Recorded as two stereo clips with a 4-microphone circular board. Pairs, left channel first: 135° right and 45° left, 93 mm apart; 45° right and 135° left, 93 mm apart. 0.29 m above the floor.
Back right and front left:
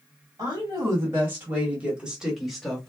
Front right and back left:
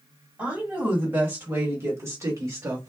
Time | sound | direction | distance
0.4 | a woman speaking | 70° left | 1.7 m